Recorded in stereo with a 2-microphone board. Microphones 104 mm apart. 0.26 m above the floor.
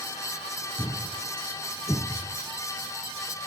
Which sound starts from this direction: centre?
A thud, at 0.8 s.